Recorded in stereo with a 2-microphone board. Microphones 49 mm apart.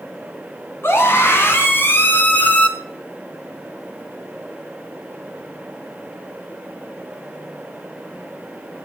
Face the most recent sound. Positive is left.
turn(degrees=30)  # may be behind; listen again after turning